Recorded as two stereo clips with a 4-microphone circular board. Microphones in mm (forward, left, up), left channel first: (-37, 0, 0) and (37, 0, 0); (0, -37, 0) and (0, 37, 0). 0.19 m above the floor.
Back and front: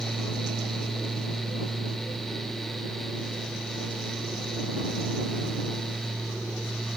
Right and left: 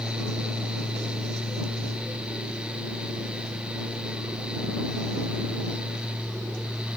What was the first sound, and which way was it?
Only background noise.